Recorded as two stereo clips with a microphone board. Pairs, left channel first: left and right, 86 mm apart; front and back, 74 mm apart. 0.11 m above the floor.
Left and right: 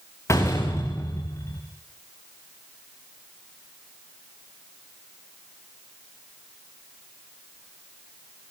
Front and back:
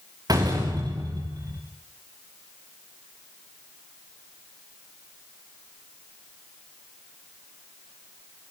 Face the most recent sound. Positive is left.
turn(degrees=145)